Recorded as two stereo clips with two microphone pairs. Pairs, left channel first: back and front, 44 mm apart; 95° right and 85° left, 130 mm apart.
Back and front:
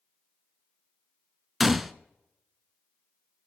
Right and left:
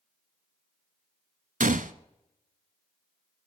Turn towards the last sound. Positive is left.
turn(degrees=80)